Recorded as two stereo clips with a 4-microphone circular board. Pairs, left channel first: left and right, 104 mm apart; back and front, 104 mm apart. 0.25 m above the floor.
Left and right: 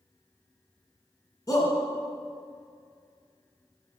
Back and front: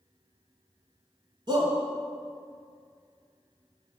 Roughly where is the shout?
Ahead left.